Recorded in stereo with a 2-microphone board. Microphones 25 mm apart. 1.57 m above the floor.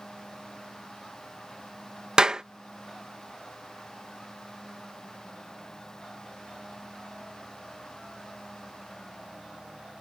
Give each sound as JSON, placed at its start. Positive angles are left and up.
{"t": 2.2, "sound": "a clap", "side_deg": -35}